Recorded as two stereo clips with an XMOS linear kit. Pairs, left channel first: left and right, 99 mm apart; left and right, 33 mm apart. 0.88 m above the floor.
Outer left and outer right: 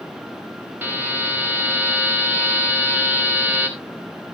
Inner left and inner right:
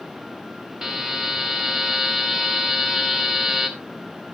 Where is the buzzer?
15° right (ahead or behind), 3.5 m.